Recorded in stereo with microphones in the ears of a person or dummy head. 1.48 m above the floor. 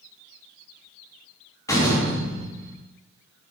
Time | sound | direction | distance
1.7 | a door slam | 15° left (ahead or behind) | 2.0 m